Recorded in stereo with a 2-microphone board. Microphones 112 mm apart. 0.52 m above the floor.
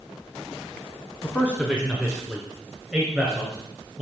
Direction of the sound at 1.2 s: Centre (ahead or behind).